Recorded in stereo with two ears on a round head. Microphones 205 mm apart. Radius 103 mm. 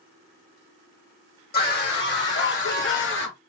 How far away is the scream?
About 2 m.